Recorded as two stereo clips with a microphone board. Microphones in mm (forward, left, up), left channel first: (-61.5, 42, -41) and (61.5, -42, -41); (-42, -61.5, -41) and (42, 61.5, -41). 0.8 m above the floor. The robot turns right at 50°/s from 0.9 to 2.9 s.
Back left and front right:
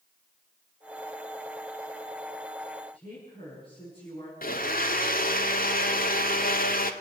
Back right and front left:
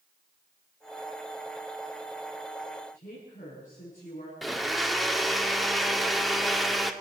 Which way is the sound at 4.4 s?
145° left.